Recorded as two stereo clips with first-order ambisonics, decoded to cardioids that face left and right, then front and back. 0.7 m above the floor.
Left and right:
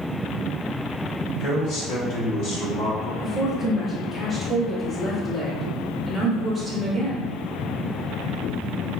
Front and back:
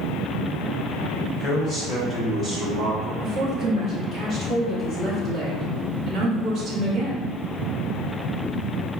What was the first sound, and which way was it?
A man speaking, 70° left.